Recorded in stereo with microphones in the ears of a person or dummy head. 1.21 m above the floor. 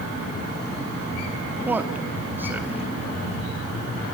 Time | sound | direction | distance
1.6 | a man speaking | 10° right (ahead or behind) | 2 m